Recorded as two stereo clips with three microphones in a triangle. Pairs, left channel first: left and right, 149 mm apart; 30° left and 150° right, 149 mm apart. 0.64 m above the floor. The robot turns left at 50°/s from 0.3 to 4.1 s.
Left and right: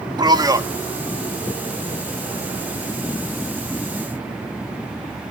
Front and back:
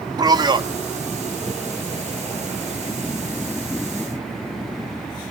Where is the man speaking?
120° right, 0.8 m; by 0.7 s 140° right, 0.8 m.